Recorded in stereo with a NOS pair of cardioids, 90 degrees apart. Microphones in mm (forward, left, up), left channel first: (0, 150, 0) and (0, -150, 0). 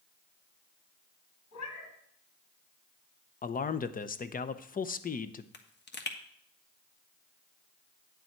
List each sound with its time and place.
1.5 s a cat meowing: 65° left, 3.5 m
3.4 s a man speaking: 30° left, 0.7 m
5.5 s a pop: 35° left, 1.4 m